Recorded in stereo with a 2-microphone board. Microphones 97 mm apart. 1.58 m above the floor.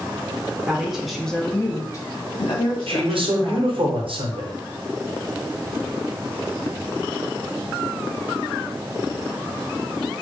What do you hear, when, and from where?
0.7 s a woman speaking: 10° right (ahead or behind), 0.8 m; by 3.9 s 50° left (ahead or behind), 1.3 m
2.9 s a man speaking: 70° right (ahead or behind), 0.9 m